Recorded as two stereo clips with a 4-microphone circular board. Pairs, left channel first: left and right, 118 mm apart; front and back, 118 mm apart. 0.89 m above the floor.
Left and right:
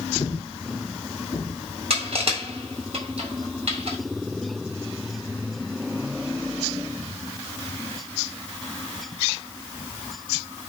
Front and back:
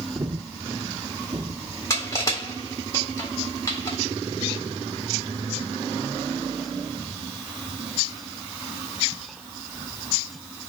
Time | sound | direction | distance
0.1 | breathing | 135° left | 1.2 m
1.9 | crushing | 60° right | 3.5 m